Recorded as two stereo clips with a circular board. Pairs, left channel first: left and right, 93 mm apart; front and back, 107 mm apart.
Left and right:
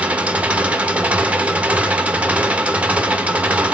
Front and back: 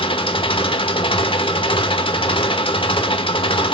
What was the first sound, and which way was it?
An engine running, 15° right.